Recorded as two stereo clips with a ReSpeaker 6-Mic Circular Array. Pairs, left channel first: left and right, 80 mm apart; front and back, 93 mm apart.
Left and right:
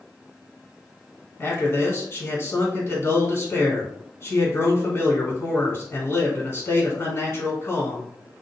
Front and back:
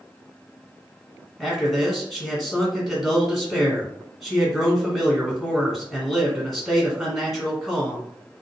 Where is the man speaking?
90° left, 1.5 m.